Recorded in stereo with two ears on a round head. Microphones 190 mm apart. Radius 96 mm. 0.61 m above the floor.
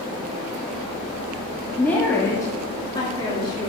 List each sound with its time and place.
1.8 s a woman speaking: 5° left (ahead or behind), 1.2 m; by 3.7 s 20° left (ahead or behind), 1.8 m